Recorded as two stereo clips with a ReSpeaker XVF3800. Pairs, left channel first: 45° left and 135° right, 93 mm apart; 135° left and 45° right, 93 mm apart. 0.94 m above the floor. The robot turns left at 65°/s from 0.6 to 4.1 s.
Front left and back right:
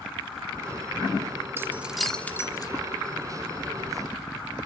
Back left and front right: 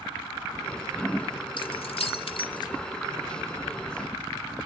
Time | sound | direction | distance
1.6 | keys jangling | 165° left | 1.7 m